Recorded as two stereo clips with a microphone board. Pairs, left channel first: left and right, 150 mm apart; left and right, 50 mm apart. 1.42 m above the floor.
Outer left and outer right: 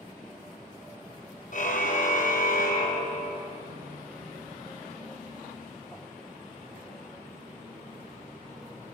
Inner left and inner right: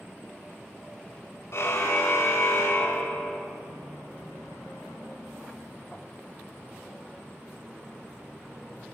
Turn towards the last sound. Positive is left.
turn(degrees=70)  # may be behind; listen again after turning